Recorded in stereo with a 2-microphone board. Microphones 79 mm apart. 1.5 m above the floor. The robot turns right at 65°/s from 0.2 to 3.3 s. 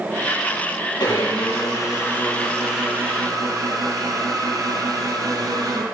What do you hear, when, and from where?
1.0 s a blender: 80° left, 5.5 m; by 5.8 s 130° right, 5.5 m